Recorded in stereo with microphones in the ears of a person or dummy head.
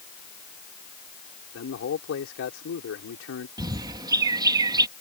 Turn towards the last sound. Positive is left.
turn(degrees=-25)  # may be behind; listen again after turning